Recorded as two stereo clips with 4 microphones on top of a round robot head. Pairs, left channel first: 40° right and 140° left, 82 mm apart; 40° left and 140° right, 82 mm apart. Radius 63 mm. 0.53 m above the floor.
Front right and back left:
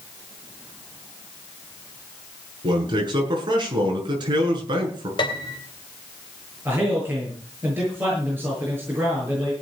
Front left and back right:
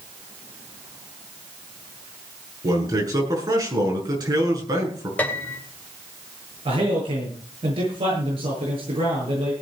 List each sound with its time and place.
2.6 s a man speaking: 175° left, 7.5 m
5.2 s a piano: 30° right, 2.5 m
6.7 s a man speaking: 155° right, 9 m